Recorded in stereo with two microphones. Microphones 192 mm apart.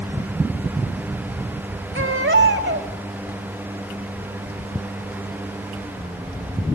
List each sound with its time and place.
1.9 s a baby crying: 75° right (ahead or behind), 2 m